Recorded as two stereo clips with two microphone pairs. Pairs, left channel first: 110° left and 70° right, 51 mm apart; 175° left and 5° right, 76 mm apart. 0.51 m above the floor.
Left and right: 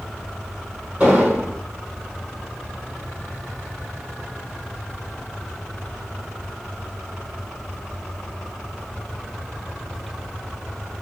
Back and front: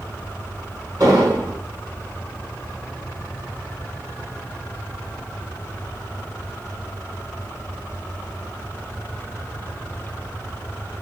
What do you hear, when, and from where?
1.0 s an explosion: 15° right, 1.5 m